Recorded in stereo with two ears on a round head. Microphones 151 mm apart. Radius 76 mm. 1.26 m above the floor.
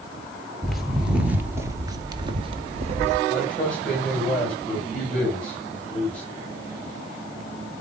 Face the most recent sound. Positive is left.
turn(degrees=5)  # may be behind; listen again after turning